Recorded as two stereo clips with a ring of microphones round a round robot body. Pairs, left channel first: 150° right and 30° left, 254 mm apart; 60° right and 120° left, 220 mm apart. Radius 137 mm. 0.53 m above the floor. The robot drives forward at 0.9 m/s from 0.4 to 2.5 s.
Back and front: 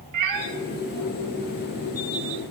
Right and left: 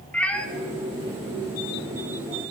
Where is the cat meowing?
25° left, 1.0 m.